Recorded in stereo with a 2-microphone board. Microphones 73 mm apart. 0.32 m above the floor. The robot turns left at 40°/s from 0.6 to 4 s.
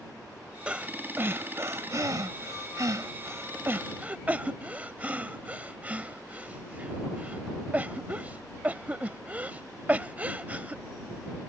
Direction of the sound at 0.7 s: 15° right (ahead or behind).